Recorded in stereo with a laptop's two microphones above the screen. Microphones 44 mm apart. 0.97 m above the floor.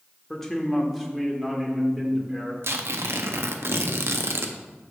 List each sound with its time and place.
0.3 s a man speaking: 10° left (ahead or behind), 1.2 m; by 2.5 s 20° right (ahead or behind), 2.5 m
2.6 s tearing paper: 70° right (ahead or behind), 0.6 m